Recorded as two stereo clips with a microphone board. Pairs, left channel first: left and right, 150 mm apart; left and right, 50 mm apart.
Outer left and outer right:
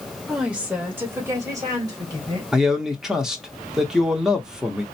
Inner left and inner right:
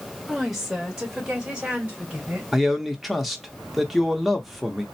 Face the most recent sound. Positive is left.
turn(degrees=-5)  # may be behind; listen again after turning